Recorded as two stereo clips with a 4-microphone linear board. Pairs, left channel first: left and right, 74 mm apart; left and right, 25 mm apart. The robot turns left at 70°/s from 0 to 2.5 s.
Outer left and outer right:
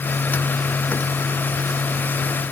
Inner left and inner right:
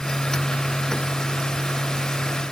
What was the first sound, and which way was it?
Only background noise.